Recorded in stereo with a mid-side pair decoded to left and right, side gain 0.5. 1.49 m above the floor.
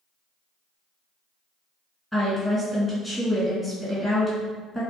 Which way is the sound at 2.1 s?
5° left.